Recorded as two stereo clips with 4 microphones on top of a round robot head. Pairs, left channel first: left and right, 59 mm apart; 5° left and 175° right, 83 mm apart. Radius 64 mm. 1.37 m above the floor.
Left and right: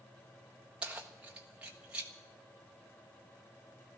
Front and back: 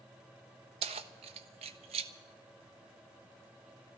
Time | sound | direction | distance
0.8 | keys jangling | 170° right | 0.7 m